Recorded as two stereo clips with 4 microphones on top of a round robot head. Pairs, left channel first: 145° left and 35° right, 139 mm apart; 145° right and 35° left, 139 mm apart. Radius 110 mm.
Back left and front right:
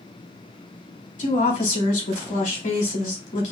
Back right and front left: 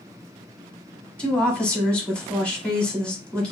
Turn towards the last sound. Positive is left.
turn(degrees=135)